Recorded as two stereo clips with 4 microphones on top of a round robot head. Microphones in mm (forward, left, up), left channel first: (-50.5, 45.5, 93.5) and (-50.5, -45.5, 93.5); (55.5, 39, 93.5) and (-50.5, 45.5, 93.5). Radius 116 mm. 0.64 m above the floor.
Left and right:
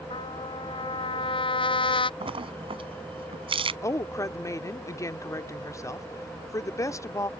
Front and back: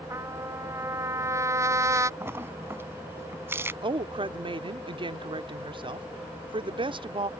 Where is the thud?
I don't hear a thud.